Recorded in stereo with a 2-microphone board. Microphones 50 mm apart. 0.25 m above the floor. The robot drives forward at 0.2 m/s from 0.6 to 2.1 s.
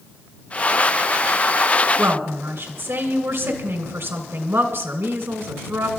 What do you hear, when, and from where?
2.0 s a woman speaking: 55° right (ahead or behind), 2 m